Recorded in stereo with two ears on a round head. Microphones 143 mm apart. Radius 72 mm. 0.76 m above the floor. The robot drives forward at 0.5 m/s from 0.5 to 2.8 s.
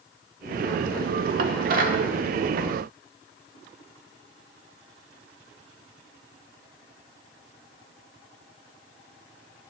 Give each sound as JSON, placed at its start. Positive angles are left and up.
{"t": 1.4, "sound": "dishes clattering", "side_deg": -65, "distance_m": 1.1}